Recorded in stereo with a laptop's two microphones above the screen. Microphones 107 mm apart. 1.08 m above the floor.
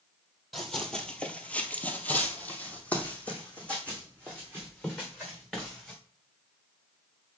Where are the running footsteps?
5° left (ahead or behind), 1.4 m; by 6.0 s 10° left (ahead or behind), 5 m.